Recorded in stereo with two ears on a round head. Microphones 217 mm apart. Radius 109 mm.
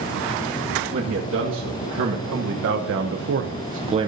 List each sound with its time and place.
0.9 s a man speaking: 55° right (ahead or behind), 1.8 m; by 4.1 s 20° right (ahead or behind), 0.5 m